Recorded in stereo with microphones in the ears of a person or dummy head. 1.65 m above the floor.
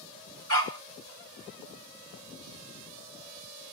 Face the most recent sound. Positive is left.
turn(degrees=-50)  # may be behind; listen again after turning